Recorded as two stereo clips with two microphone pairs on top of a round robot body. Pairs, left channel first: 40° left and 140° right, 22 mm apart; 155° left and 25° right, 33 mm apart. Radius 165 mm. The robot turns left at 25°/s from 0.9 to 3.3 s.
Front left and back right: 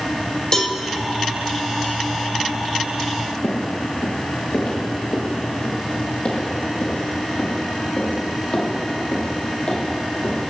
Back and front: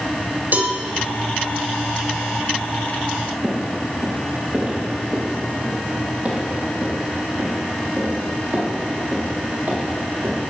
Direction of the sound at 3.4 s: 45° left.